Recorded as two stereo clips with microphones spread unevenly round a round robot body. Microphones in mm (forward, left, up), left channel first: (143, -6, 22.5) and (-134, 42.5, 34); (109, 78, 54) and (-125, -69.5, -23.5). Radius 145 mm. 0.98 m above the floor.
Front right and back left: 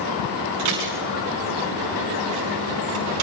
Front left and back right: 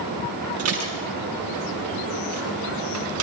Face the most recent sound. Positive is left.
turn(degrees=170)